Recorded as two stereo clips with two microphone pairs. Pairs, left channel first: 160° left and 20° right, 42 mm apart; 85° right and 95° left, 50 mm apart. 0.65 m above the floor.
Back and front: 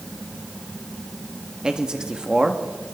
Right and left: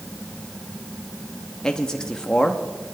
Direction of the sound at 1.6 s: 40° right.